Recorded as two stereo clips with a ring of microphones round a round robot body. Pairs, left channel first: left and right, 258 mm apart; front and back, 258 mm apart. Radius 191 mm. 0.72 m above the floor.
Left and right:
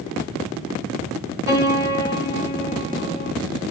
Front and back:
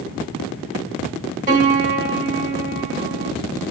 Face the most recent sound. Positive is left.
turn(degrees=125)